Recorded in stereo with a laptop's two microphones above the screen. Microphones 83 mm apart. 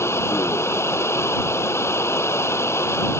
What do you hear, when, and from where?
0.0 s running water: 30° left (ahead or behind)